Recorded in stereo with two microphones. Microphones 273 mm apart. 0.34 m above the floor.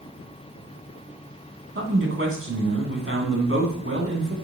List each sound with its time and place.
1.8 s a man speaking: 50° right (ahead or behind), 3 m